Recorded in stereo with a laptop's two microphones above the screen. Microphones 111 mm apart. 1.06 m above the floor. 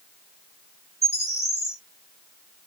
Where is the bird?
75° left (ahead or behind), 1.8 m.